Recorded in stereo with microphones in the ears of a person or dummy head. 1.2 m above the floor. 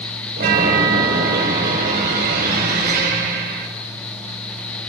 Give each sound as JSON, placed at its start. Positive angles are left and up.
{"t": 0.4, "sound": "a chime", "side_deg": -50, "distance_m": 5.5}